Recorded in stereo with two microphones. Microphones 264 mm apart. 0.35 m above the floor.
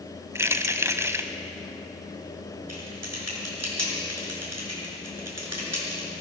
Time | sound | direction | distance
0.3 | keys jangling | 10° right (ahead or behind) | 1.3 m
2.7 | typing on a keyboard | 70° right (ahead or behind) | 6 m